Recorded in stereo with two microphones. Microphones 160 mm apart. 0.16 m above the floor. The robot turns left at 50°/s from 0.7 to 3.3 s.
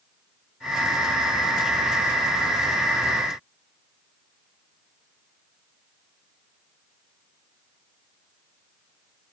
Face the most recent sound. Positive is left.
No sound to turn to.